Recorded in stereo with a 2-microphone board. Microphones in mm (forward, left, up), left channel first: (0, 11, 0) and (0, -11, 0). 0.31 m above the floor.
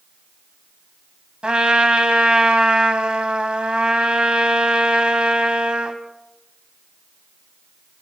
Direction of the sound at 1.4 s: 55° right (ahead or behind).